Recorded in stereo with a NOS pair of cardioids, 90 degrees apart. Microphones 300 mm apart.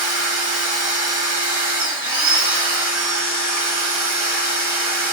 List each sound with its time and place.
0.0 s a machine running: 30° right, 1.6 m